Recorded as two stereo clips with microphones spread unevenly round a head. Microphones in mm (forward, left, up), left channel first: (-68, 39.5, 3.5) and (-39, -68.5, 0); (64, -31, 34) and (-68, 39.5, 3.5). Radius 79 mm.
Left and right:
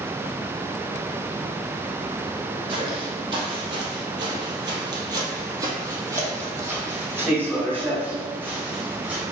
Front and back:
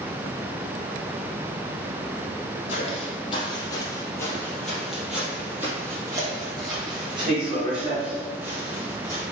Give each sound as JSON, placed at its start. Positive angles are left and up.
{"t": 2.7, "sound": "footsteps", "azimuth_deg": -30, "distance_m": 2.5}